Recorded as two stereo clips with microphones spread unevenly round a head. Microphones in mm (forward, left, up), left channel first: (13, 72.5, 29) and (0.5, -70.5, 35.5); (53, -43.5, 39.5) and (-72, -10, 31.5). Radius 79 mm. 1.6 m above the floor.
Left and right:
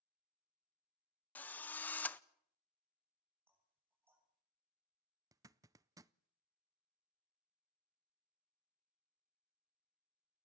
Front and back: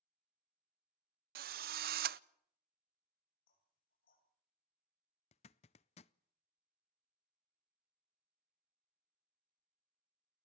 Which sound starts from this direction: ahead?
Knocking, at 3.5 s.